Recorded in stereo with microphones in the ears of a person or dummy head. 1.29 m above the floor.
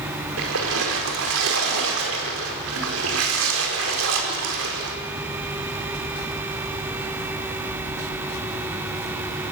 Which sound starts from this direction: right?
A splash, at 0.4 s.